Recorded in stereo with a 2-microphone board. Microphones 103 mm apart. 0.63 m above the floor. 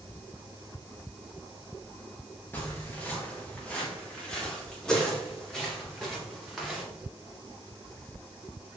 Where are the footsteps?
20° left (ahead or behind), 4 m; by 6.8 s centre (ahead or behind), 6 m.